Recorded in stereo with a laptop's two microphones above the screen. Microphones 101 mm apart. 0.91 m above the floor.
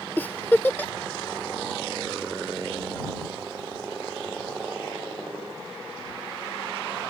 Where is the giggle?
20° left (ahead or behind).